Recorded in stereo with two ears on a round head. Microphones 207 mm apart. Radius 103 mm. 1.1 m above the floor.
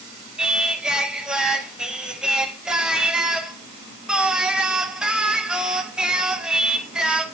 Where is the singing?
5° right (ahead or behind), 0.5 m.